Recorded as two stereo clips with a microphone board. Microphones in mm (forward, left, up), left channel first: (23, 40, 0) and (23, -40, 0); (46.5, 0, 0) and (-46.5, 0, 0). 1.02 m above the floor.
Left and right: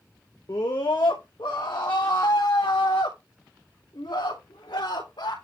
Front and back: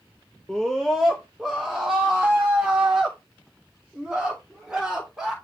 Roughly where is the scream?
Left.